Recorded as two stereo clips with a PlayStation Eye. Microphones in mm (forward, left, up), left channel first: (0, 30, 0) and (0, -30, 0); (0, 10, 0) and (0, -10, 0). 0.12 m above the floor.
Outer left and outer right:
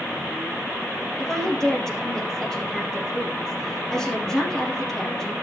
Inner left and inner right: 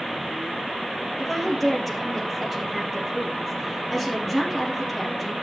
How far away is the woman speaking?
About 3 m.